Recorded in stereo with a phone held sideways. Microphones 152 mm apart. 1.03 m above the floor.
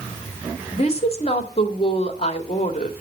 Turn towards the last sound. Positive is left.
turn(degrees=45)  # may be behind; listen again after turning